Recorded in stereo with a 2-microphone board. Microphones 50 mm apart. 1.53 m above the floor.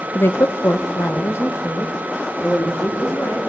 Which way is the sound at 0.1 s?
50° left (ahead or behind).